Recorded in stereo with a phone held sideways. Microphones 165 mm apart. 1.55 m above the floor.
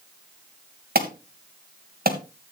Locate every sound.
0.9 s an alarm: 65° right (ahead or behind), 1.9 m